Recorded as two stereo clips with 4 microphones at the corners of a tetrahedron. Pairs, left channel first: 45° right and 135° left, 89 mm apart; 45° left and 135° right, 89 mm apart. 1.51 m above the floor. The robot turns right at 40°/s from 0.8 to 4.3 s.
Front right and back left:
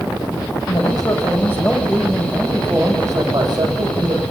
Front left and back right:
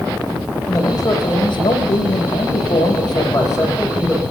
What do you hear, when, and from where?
0.7 s a man speaking: 10° right, 9 m; by 4.2 s 125° left, 9 m